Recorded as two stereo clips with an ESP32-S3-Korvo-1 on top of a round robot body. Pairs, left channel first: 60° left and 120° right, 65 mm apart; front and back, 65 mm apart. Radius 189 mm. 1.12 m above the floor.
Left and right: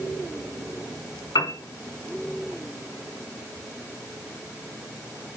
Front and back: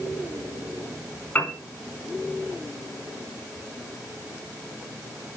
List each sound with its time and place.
1.4 s a piano: 60° left, 4 m